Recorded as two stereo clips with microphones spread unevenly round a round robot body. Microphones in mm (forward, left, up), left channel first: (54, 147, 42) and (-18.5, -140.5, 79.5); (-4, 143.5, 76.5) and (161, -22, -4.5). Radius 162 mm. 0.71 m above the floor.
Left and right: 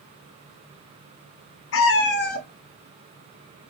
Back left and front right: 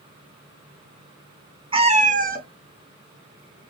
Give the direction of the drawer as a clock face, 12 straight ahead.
No drawer in this recording.